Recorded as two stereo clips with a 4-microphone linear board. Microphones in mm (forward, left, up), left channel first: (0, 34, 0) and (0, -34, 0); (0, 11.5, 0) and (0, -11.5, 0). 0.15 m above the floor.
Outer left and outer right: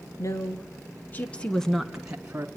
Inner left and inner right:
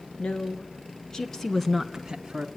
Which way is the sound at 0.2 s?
50° left (ahead or behind).